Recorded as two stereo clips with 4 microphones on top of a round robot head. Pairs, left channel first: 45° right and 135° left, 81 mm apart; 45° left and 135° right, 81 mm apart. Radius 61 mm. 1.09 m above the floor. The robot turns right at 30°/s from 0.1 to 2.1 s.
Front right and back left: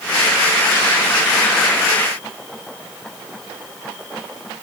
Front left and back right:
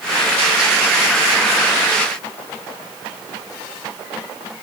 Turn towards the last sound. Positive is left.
No sound to turn to.